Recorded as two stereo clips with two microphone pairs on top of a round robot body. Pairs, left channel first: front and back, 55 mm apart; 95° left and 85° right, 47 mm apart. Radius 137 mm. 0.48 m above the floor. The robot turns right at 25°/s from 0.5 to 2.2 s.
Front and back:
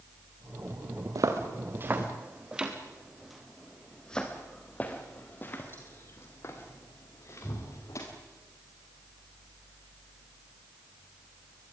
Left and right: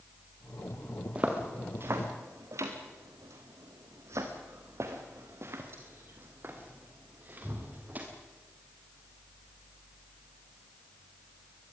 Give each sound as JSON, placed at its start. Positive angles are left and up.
{"t": 1.1, "sound": "footsteps", "azimuth_deg": -150, "distance_m": 2.5}